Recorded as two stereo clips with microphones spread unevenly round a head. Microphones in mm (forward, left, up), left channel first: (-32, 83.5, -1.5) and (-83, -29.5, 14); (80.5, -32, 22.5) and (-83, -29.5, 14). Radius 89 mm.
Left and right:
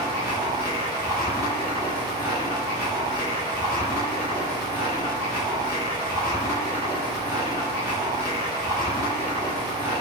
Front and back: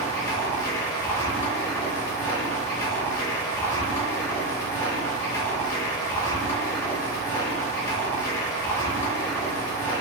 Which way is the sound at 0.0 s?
60° right.